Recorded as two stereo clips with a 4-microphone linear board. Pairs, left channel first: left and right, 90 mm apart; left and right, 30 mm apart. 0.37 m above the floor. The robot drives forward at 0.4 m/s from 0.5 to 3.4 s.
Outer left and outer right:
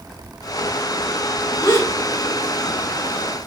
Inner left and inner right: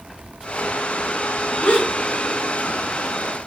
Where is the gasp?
50° left (ahead or behind), 3.5 m; by 3.5 s 45° left (ahead or behind), 4 m.